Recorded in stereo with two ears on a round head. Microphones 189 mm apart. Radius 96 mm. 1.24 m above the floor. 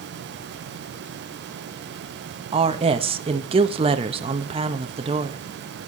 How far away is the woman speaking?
About 1.2 m.